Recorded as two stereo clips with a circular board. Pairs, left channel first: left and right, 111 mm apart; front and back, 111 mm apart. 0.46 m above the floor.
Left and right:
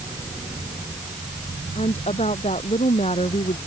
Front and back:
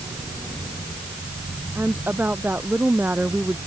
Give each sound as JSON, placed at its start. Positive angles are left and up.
{"t": 1.8, "sound": "a woman speaking", "azimuth_deg": 105}